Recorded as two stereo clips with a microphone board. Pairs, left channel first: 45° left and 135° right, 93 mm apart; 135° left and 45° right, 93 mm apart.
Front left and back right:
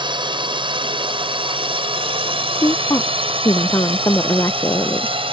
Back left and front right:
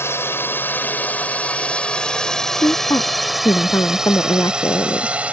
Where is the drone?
165° right; by 5.3 s 120° right.